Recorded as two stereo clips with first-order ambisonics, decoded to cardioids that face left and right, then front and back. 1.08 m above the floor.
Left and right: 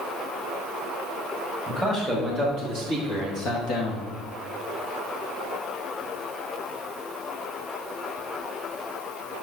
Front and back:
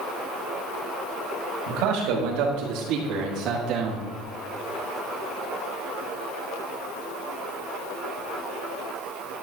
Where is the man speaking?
175° left, 2.5 m; by 4.1 s 120° left, 2 m.